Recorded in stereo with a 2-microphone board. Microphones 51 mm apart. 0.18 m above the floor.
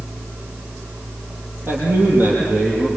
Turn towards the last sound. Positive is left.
turn(degrees=-30)  # may be behind; listen again after turning